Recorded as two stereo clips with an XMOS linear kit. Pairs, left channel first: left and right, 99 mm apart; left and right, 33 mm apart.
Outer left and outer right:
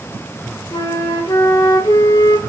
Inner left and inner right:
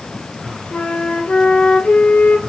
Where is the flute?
50° left (ahead or behind), 0.7 m.